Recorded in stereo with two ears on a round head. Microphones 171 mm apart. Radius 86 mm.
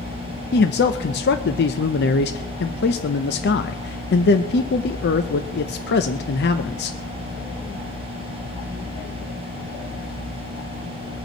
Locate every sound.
0.5 s a man speaking: 55° left (ahead or behind), 0.7 m